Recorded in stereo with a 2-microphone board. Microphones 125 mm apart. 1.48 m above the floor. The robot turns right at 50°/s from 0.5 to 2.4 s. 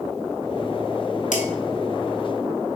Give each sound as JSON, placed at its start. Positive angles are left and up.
{"t": 1.3, "sound": "dishes clattering", "side_deg": 70, "distance_m": 1.6}